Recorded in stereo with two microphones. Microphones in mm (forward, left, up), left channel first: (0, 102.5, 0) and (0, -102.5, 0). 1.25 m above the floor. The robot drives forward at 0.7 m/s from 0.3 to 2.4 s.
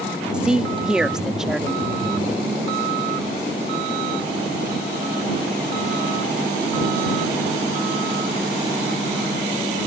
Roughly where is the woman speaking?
Centre.